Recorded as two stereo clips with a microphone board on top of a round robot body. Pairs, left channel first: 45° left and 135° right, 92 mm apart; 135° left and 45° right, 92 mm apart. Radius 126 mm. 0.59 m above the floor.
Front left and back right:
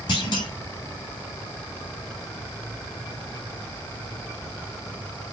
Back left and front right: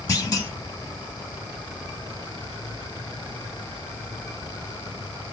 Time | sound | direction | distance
0.1 | a clunk | 80° left | 0.7 m